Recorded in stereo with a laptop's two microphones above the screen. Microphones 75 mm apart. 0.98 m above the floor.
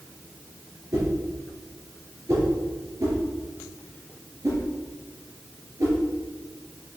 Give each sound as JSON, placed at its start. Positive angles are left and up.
{"t": 0.9, "sound": "a whoosh", "side_deg": -45, "distance_m": 4.0}